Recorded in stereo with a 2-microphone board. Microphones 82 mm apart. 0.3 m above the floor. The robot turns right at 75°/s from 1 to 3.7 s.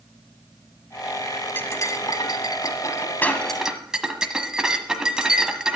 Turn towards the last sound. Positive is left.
turn(degrees=-170)